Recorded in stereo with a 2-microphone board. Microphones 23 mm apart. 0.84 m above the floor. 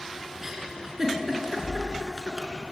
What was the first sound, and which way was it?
A giggle, 20° right (ahead or behind).